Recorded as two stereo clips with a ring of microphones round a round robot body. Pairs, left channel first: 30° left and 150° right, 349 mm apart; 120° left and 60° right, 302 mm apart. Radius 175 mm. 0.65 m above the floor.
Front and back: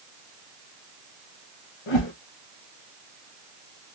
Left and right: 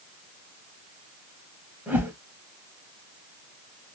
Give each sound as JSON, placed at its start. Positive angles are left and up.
{"t": 1.9, "sound": "a whoosh", "azimuth_deg": 25, "distance_m": 2.0}